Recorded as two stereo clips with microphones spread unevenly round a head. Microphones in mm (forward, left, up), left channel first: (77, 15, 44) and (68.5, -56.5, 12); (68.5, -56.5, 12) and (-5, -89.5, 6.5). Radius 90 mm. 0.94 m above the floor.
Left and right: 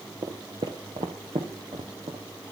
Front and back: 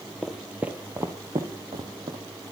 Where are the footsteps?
65° right, 0.9 m; by 2.2 s 155° right, 1.4 m.